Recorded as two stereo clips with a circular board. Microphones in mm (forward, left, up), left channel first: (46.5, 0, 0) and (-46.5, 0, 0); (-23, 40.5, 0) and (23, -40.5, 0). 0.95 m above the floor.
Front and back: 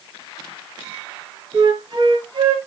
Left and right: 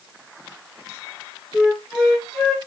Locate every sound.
1.5 s a flute: 145° right, 1.0 m